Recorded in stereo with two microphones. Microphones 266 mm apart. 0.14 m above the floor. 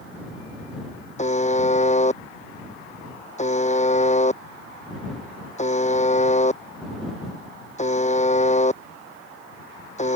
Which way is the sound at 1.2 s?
25° left (ahead or behind).